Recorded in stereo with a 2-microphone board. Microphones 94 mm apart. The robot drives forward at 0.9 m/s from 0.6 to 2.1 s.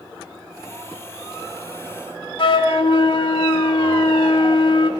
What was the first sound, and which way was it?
A flute, 65° left (ahead or behind).